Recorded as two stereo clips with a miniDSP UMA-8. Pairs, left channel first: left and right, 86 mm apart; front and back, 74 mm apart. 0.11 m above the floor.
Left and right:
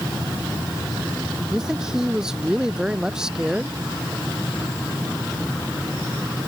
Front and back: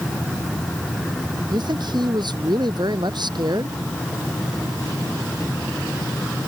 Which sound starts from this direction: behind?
A man speaking, at 1.5 s.